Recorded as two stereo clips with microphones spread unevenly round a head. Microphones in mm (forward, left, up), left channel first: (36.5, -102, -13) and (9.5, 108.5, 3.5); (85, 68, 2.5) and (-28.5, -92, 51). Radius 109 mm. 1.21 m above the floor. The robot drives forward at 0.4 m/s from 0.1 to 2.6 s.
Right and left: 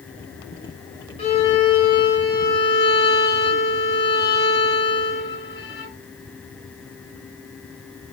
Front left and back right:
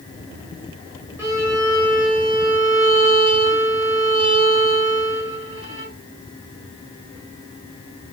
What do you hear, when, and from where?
1.2 s a violin: 115° right, 1.0 m; by 5.9 s 155° right, 1.2 m